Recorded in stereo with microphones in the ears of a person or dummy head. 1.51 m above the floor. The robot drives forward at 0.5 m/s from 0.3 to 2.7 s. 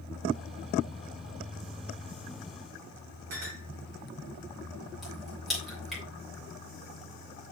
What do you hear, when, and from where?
3.3 s a clink: 45° right (ahead or behind), 3 m
5.0 s a crack: centre (ahead or behind), 3 m